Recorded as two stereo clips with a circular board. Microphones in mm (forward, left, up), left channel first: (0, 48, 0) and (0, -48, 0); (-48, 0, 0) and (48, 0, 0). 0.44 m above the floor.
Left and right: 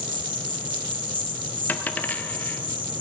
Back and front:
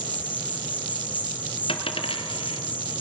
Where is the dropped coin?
165° left, 1.5 m.